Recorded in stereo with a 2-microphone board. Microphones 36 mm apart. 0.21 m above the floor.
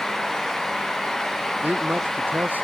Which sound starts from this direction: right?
A man speaking, at 1.6 s.